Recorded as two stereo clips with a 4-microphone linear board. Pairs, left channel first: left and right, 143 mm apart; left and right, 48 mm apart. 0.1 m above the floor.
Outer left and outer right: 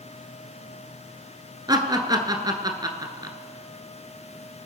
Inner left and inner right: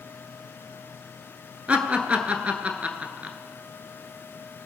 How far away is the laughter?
About 1.2 m.